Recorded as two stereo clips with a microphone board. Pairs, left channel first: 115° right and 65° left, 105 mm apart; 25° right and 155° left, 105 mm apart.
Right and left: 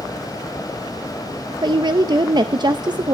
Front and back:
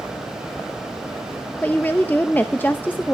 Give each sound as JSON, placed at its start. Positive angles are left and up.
{"t": 1.6, "sound": "a woman speaking", "azimuth_deg": 45, "distance_m": 0.6}